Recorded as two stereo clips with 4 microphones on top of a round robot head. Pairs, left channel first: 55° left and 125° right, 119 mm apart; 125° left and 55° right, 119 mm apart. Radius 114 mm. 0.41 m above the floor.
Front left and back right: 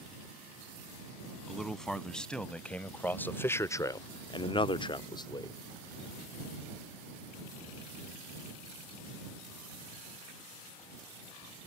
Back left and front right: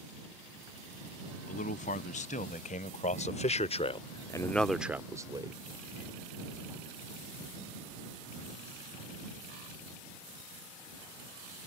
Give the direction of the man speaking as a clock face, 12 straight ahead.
7 o'clock.